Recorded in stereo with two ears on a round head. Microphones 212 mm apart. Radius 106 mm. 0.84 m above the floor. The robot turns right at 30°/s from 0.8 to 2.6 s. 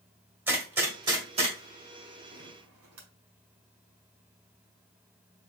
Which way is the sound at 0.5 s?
10° right (ahead or behind).